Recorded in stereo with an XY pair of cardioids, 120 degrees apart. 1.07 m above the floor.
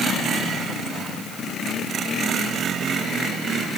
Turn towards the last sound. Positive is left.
No sound to turn to.